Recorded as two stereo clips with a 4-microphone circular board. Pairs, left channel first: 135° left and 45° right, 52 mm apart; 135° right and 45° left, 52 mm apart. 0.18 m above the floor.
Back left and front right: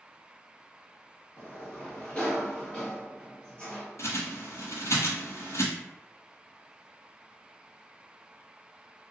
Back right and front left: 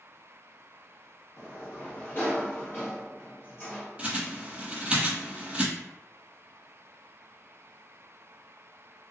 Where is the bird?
115° left, 0.8 m.